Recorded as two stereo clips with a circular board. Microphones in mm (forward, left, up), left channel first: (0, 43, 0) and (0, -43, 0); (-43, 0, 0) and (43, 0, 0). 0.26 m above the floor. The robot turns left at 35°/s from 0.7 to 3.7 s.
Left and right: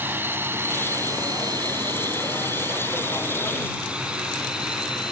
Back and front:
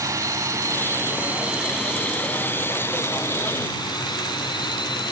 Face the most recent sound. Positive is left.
turn(degrees=-170)